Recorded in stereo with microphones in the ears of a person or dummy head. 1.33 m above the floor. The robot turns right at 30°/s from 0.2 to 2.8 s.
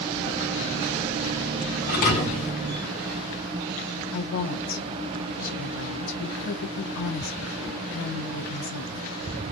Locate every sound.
1.9 s a thud: 40° left (ahead or behind), 1.3 m; by 2.5 s 35° left (ahead or behind), 1.3 m
4.1 s a woman speaking: 70° left (ahead or behind), 0.8 m